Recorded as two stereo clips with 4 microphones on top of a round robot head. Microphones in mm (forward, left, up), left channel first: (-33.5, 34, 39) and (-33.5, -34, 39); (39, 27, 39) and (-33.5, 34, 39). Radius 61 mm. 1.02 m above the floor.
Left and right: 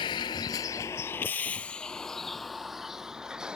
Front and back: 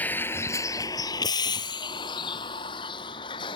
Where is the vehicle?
60° left; by 3.6 s 10° right.